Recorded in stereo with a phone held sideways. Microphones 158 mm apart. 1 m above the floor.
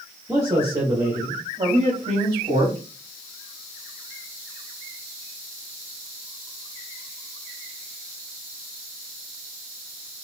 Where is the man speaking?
15° right (ahead or behind), 1.3 m; by 2.8 s 40° right (ahead or behind), 2.5 m.